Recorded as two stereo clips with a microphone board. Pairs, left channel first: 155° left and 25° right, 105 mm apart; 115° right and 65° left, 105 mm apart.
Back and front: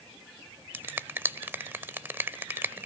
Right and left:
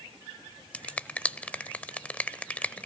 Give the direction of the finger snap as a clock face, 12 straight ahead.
2 o'clock.